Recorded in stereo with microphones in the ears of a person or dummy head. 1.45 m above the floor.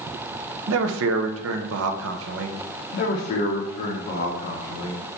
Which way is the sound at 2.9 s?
50° left (ahead or behind).